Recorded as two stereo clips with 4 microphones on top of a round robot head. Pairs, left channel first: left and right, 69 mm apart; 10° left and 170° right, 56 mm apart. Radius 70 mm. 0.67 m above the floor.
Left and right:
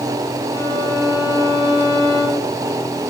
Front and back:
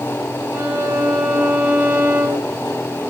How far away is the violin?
About 6.5 m.